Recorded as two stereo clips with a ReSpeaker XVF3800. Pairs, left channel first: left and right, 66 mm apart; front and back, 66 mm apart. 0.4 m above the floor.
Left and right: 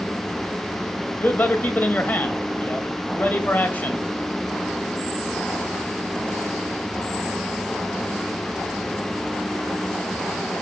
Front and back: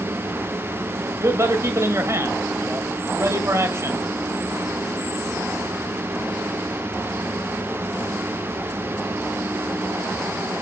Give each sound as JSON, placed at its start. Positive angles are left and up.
{"t": 1.2, "sound": "a man speaking", "azimuth_deg": 150, "distance_m": 1.7}